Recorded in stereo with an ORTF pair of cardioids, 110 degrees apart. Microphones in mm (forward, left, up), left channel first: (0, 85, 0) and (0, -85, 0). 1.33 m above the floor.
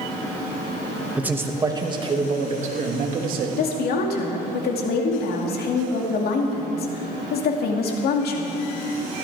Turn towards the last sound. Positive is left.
turn(degrees=65)